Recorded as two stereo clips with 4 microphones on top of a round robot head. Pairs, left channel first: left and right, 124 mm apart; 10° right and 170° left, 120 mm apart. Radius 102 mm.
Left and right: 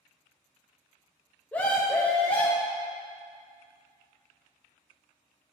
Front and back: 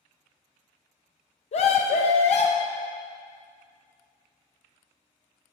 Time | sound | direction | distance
1.5 | a scream | 10° left | 0.5 m